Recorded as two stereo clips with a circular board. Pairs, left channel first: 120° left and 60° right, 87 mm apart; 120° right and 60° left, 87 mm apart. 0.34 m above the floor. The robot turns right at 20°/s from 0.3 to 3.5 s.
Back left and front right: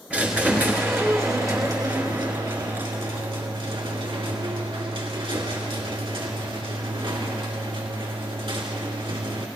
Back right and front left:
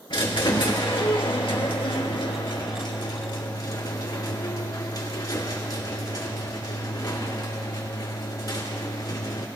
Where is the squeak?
135° right, 2.5 m; by 9.5 s 75° right, 2.5 m.